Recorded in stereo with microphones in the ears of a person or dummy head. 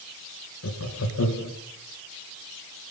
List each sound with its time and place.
0.6 s laughter: 80° left, 2.0 m